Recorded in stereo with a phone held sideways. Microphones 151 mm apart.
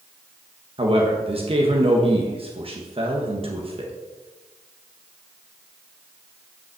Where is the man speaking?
40° right (ahead or behind), 1.3 m.